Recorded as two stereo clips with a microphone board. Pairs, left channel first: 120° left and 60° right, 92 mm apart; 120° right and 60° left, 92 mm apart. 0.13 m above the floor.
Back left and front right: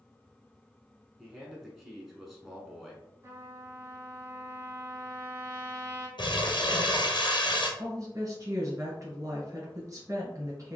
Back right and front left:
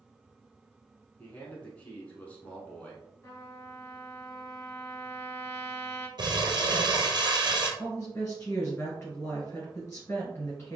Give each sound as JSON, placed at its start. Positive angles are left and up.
{"t": 1.2, "sound": "a man speaking", "azimuth_deg": -145, "distance_m": 1.1}
{"t": 3.2, "sound": "a trumpet", "azimuth_deg": -85, "distance_m": 1.3}
{"t": 6.2, "sound": "crumpling", "azimuth_deg": 95, "distance_m": 1.2}
{"t": 7.8, "sound": "a woman speaking", "azimuth_deg": -70, "distance_m": 1.6}